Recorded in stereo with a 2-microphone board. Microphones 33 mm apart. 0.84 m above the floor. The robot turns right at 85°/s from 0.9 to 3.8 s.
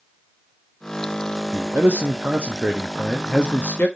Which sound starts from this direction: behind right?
A man speaking, at 1.5 s.